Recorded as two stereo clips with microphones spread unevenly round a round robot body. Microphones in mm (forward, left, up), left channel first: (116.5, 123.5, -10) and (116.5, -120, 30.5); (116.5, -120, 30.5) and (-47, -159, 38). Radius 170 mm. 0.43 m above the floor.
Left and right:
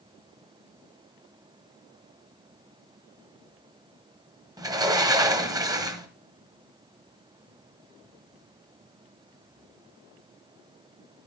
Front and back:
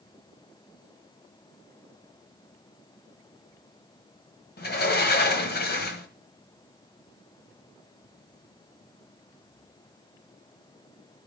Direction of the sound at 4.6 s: 10° right.